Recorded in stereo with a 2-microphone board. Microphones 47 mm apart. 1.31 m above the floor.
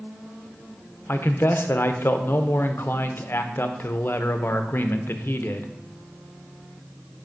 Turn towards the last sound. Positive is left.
turn(degrees=50)  # may be behind; listen again after turning